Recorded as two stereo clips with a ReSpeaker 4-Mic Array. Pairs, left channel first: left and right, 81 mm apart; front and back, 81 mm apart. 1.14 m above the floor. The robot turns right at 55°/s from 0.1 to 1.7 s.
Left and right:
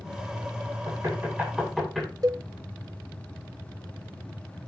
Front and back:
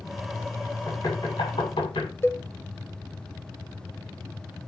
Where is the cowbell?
60° right, 1.1 m.